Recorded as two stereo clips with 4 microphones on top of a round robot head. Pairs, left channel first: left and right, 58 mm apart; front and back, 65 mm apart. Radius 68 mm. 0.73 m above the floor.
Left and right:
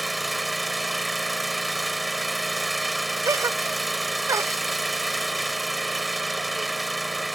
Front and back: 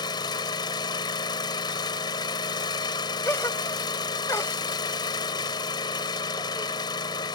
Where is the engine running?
Straight ahead.